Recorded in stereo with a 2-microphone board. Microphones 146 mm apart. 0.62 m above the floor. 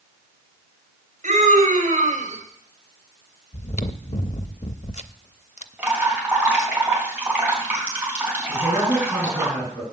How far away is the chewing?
About 0.5 m.